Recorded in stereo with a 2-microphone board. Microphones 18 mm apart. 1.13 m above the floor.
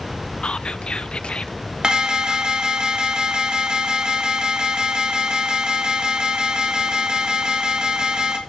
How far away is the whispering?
About 1.1 m.